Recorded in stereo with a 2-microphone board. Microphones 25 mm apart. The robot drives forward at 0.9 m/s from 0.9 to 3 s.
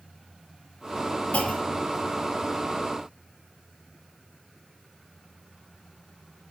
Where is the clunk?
65° left (ahead or behind), 1.2 m; by 1.9 s 85° left, 1.1 m.